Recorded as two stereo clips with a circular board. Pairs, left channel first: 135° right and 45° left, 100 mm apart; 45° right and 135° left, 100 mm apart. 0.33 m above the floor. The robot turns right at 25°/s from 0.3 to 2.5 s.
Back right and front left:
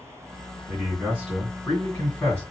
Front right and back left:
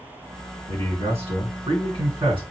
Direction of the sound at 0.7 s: 120° left.